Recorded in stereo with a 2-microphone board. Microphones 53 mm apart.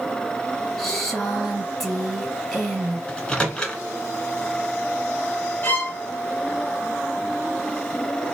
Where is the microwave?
15° left (ahead or behind), 1.1 m.